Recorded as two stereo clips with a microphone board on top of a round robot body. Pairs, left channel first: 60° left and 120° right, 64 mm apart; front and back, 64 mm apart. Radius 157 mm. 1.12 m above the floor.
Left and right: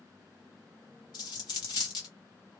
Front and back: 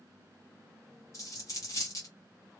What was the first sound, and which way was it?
A dropped coin, 45° left.